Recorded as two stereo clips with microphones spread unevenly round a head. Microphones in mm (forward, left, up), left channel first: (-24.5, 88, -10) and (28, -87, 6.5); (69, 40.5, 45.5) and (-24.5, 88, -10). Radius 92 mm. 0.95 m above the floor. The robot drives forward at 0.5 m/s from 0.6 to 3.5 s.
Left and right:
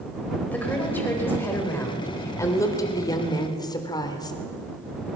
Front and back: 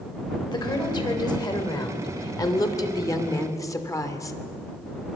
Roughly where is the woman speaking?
Ahead left.